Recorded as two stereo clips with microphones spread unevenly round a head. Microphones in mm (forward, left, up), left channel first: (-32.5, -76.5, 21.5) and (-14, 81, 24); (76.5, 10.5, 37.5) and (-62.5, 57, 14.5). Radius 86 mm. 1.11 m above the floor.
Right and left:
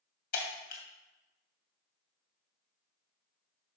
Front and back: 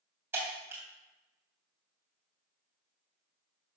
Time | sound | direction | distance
0.3 | breaking glass | 120° right | 2.5 m